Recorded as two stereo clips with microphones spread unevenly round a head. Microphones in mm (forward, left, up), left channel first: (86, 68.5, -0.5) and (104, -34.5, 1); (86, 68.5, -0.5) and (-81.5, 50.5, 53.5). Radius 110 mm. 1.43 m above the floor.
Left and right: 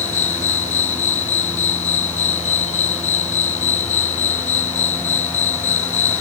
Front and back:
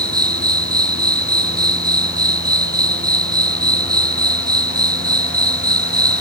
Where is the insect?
120° left.